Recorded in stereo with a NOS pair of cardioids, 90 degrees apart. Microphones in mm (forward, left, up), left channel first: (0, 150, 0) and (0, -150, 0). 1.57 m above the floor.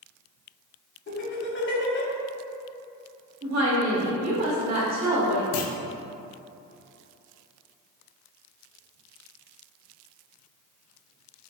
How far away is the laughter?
About 1.1 m.